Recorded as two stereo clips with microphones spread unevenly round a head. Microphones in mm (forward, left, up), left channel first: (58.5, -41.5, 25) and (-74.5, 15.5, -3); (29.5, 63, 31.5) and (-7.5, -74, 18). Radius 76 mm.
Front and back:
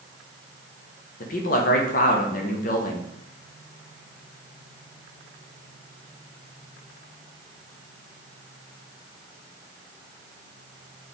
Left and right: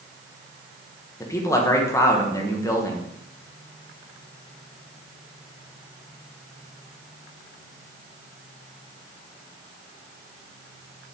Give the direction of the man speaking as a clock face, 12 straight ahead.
12 o'clock.